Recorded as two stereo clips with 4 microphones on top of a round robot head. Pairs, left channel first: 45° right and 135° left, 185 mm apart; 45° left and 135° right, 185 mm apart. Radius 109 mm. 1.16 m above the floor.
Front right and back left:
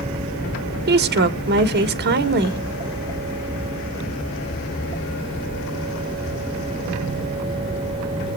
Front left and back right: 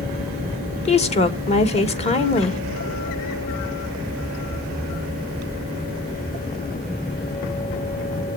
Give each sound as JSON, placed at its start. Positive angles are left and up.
{"t": 0.9, "sound": "a woman speaking", "azimuth_deg": 105, "distance_m": 1.5}